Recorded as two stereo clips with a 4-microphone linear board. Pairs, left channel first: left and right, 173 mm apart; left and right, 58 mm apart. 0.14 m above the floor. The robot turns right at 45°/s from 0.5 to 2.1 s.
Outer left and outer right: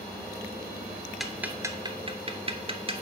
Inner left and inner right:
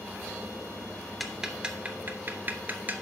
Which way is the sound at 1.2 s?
Centre (ahead or behind).